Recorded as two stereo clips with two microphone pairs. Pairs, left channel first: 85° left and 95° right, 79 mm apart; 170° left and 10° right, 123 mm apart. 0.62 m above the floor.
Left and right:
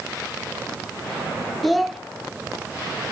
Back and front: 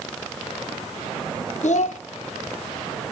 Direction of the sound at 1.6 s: 175° left.